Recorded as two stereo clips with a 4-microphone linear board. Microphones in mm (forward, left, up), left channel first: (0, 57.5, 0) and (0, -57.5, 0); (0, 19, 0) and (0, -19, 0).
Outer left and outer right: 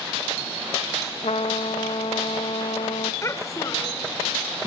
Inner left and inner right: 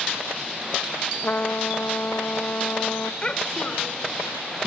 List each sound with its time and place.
1.2 s a trumpet: 70° left (ahead or behind), 0.9 m
3.2 s a child speaking: 25° left (ahead or behind), 2.5 m